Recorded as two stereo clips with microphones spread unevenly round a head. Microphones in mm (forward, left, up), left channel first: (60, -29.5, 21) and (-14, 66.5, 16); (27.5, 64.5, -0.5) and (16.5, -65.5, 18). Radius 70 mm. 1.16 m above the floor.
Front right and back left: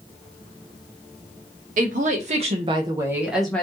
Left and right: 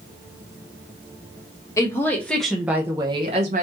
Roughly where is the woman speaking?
Behind left.